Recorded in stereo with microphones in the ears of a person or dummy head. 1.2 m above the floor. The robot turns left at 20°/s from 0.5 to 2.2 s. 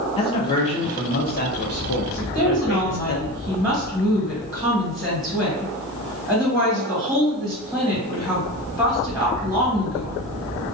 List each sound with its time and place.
0.2 s a man speaking: 145° left, 0.6 m; by 3.2 s 110° left, 0.6 m
2.2 s a woman speaking: 10° right (ahead or behind), 1.3 m